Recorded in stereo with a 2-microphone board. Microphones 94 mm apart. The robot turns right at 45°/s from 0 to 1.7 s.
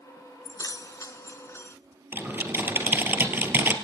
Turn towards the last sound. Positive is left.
turn(degrees=-20)  # may be behind; listen again after turning